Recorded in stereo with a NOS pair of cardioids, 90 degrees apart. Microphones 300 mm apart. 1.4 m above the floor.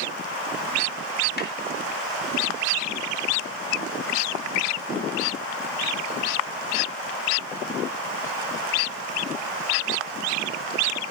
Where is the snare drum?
35° left, 3.5 m.